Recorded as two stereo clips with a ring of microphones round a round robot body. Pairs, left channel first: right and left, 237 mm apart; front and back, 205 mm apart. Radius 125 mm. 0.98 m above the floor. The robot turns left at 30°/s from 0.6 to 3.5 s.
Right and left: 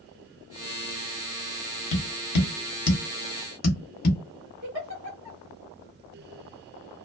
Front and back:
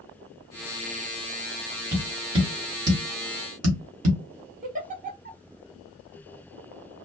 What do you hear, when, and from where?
1.9 s tapping: 95° right, 1.0 m; by 4.2 s 145° right, 1.0 m
4.6 s a giggle: 130° left, 1.6 m